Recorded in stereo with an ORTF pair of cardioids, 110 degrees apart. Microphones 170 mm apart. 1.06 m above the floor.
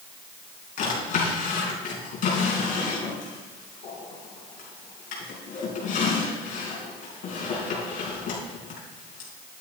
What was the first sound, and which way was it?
A drawer, 55° left.